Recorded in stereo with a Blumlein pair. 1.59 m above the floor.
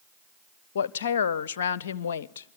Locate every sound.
0.8 s a woman speaking: 60° left, 0.6 m